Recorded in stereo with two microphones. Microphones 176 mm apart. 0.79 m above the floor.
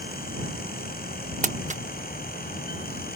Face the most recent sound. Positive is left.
turn(degrees=-45)  # may be behind; listen again after turning